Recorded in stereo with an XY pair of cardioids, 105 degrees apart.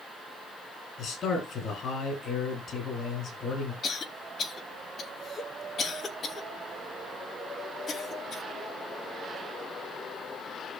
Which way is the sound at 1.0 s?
55° left.